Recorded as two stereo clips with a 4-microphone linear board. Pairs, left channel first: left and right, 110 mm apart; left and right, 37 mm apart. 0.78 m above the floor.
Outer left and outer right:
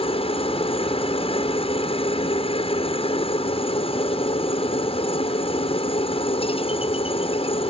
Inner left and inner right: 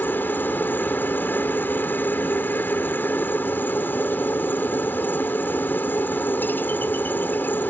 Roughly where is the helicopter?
Left.